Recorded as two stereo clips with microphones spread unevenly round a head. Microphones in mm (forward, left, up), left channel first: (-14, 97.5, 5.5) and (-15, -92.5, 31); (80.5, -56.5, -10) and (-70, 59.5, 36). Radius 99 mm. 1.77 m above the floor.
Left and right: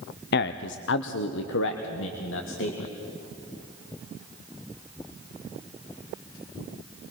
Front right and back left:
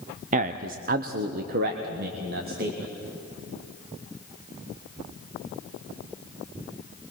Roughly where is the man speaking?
Behind left.